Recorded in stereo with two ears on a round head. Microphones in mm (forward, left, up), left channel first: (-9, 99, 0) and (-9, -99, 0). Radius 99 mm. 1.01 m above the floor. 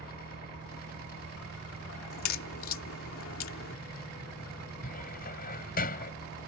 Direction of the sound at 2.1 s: 65° left (ahead or behind).